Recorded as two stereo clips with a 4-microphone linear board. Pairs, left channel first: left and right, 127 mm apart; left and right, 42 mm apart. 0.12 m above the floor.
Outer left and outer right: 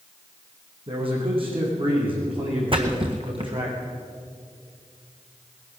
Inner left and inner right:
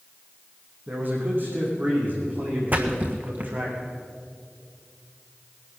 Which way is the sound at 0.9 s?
45° right (ahead or behind).